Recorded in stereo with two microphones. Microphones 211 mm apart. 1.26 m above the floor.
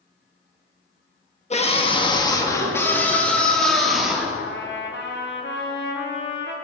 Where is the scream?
30° left (ahead or behind), 1.5 m; by 4.3 s 5° right (ahead or behind), 2.5 m.